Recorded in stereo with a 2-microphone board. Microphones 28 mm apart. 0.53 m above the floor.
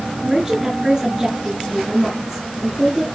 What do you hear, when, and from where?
0.2 s a woman speaking: 15° right (ahead or behind), 7 m